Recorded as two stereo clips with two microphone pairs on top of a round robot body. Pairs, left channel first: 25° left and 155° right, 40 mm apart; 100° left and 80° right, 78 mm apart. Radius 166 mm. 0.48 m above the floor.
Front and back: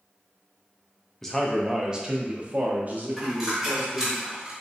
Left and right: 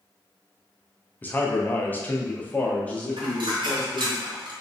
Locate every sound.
1.2 s a man speaking: 80° left, 0.9 m; by 4.2 s straight behind, 1.8 m
3.2 s a dropped coin: 75° right, 1.1 m